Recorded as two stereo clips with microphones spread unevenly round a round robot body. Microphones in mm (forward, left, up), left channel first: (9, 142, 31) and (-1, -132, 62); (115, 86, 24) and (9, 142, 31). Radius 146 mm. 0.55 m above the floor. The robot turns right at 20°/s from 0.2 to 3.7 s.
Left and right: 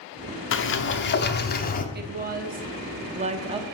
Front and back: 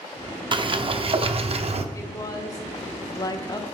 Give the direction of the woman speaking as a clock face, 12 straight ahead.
2 o'clock.